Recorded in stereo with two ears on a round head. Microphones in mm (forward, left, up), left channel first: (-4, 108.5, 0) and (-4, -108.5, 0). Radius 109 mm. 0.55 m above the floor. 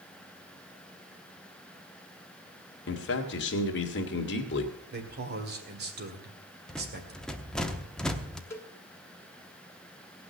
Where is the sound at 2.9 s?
50° left (ahead or behind), 1.8 m.